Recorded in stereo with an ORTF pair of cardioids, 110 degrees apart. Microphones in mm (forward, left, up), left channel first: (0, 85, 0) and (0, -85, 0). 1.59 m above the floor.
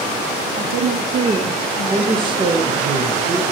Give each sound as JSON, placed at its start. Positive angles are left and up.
{"t": 0.6, "sound": "a woman speaking", "azimuth_deg": -65, "distance_m": 1.0}
{"t": 1.9, "sound": "a man speaking", "azimuth_deg": -30, "distance_m": 1.4}